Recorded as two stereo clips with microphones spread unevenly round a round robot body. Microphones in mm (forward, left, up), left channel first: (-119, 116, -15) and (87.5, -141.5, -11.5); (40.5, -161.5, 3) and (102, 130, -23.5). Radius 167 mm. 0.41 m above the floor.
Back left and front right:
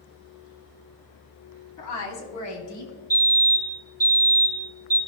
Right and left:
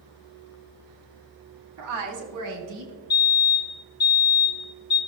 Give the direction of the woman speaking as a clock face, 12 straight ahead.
9 o'clock.